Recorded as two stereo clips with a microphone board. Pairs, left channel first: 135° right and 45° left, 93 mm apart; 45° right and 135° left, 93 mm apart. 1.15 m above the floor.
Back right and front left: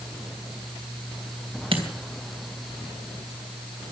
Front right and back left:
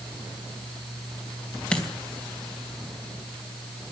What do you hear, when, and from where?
1.7 s a dropped coin: 35° left, 2.5 m